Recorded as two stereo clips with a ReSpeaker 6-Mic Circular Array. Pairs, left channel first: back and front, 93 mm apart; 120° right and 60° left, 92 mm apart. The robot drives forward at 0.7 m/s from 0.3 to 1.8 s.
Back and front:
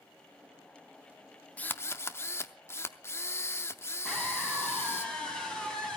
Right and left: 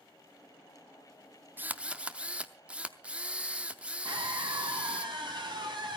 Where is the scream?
95° left, 5 m.